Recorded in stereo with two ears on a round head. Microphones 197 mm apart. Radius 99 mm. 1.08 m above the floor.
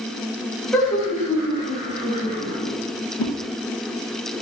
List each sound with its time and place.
0.7 s laughter: 5° left (ahead or behind), 1.8 m; by 2.7 s 45° left (ahead or behind), 1.8 m
3.2 s a whoosh: 75° left (ahead or behind), 0.6 m